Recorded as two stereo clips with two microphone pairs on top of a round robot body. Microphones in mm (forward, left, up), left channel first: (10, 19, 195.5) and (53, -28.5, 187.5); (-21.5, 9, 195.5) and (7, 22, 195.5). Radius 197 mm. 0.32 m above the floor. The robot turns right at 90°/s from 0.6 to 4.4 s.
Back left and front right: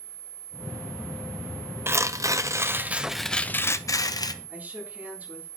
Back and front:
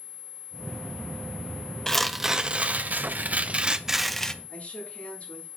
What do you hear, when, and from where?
1.9 s tearing paper: 85° right, 0.8 m; by 4.3 s 140° left, 0.8 m
4.5 s a woman speaking: 110° right, 7 m